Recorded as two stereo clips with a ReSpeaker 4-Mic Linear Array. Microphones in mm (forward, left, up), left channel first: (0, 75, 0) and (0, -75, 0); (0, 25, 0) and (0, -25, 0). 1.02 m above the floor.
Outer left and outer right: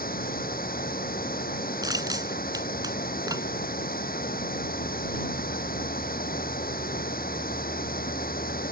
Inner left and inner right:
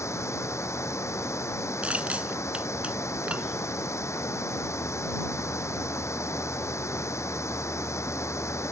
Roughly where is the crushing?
Right.